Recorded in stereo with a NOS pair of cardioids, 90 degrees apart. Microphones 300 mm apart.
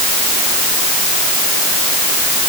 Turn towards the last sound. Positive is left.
No sound to turn to.